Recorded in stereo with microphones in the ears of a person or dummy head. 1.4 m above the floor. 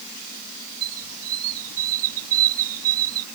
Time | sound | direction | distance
0.8 | a squeak | 85° right | ?